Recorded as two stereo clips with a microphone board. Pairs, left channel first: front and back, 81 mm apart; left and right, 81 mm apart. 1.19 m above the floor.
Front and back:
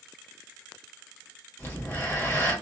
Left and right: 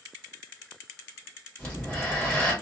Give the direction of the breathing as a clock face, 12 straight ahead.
11 o'clock.